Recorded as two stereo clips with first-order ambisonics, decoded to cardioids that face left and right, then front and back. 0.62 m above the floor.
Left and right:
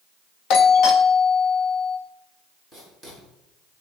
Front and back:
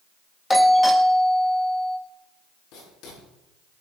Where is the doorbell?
75° left, 1.6 m.